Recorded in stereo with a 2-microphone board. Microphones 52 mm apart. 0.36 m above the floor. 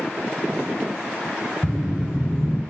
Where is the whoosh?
55° left (ahead or behind), 0.7 m.